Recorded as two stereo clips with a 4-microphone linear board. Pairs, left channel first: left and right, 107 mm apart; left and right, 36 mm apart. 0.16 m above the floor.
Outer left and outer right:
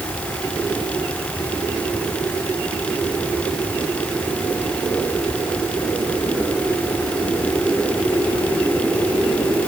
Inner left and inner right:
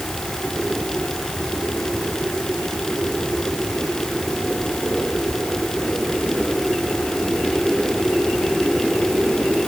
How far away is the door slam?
No door slam in this recording.